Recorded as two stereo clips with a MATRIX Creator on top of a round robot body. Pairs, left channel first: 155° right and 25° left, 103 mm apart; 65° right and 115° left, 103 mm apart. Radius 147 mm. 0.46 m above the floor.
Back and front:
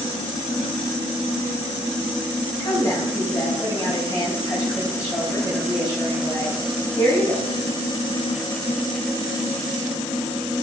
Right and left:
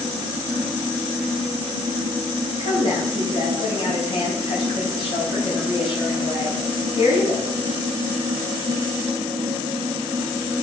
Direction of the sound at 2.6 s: 100° right.